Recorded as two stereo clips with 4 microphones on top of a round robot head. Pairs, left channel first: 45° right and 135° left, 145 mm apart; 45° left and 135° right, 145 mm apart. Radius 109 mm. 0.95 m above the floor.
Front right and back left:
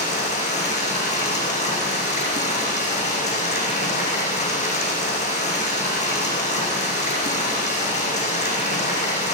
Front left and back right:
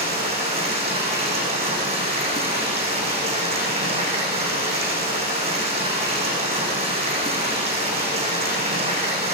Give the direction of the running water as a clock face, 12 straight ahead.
3 o'clock.